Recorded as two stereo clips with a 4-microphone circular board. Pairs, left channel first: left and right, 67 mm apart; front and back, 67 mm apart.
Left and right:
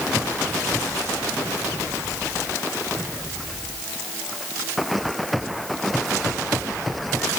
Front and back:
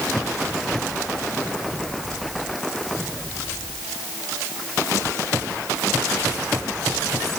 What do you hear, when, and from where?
Only background noise.